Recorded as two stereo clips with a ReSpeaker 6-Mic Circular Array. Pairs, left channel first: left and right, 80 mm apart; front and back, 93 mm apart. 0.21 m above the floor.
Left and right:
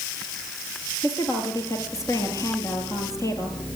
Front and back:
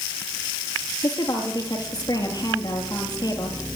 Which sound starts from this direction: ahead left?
A woman speaking, at 1.0 s.